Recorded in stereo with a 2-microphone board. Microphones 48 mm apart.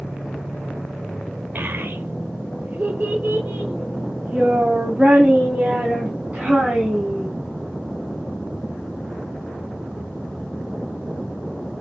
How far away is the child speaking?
About 1.2 m.